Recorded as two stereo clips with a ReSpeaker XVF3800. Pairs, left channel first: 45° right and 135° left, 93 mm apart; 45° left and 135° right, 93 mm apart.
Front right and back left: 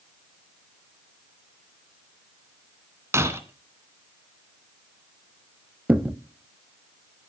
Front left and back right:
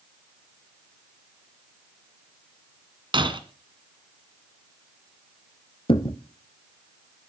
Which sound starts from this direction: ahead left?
A thud, at 5.9 s.